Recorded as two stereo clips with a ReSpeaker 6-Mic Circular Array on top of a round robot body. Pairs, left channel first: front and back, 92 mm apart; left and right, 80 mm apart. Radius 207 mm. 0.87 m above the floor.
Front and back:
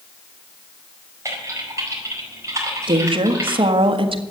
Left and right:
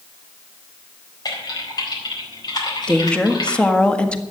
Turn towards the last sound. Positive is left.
turn(degrees=165)